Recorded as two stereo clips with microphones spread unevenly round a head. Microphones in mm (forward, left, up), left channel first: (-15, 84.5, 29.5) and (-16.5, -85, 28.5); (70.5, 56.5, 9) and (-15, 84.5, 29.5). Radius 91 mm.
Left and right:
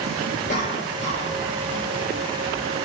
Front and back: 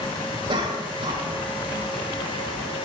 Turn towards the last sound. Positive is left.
turn(degrees=135)